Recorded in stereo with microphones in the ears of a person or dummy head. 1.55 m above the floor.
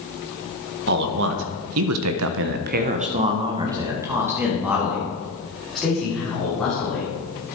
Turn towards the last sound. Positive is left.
turn(degrees=5)  # may be behind; listen again after turning